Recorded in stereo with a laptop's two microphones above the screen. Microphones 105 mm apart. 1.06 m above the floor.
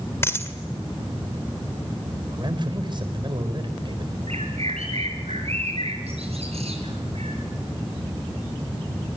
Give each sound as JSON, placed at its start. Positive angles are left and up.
{"t": 0.2, "sound": "a dropped coin", "side_deg": 25, "distance_m": 1.8}
{"t": 2.3, "sound": "a man speaking", "side_deg": -50, "distance_m": 4.5}
{"t": 4.3, "sound": "a bird", "side_deg": -80, "distance_m": 6.0}